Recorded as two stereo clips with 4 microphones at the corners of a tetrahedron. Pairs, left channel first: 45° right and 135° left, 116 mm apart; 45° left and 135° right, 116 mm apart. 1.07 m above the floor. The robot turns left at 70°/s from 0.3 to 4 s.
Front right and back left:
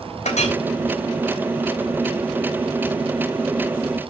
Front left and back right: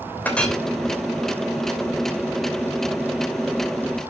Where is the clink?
30° right, 3 m; by 0.6 s 50° right, 3 m.